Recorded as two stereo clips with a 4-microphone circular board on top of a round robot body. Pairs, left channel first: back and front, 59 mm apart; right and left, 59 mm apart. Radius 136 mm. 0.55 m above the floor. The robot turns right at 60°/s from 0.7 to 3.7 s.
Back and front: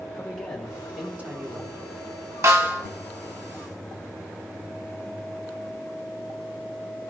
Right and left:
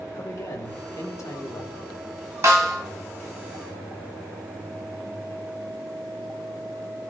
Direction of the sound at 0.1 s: 95° right.